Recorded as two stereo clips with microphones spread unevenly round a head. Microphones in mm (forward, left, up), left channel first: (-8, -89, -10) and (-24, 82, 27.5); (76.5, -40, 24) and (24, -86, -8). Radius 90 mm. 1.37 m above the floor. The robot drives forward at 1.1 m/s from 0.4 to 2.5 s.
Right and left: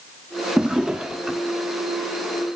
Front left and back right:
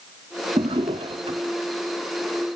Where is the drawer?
175° left.